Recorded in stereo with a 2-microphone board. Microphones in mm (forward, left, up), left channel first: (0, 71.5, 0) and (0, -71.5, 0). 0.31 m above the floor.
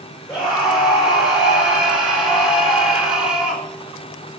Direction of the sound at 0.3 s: 5° right (ahead or behind).